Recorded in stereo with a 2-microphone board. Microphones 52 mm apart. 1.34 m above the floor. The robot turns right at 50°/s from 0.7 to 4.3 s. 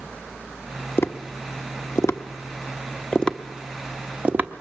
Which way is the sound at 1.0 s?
45° left (ahead or behind).